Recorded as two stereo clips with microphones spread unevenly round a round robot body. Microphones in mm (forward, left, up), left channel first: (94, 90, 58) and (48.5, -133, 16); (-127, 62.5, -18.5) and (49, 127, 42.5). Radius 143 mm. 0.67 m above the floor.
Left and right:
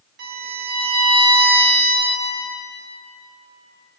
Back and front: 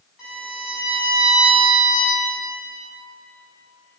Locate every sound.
0.2 s a violin: 75° right, 2 m